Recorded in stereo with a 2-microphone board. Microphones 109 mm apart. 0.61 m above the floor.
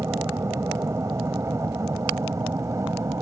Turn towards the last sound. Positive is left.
turn(degrees=-25)  # may be behind; listen again after turning